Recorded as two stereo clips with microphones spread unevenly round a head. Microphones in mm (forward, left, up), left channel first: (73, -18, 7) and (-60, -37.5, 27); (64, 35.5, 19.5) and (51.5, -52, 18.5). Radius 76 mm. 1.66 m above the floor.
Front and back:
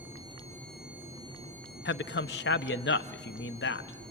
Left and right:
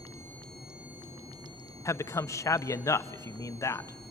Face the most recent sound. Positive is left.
turn(degrees=30)